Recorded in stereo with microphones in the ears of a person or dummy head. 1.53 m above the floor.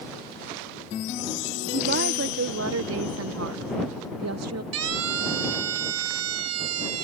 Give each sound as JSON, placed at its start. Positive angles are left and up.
{"t": 1.7, "sound": "a woman speaking", "side_deg": -50}
{"t": 4.7, "sound": "a siren", "side_deg": -85}